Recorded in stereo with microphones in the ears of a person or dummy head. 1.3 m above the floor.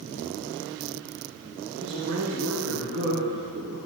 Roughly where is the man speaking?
Right.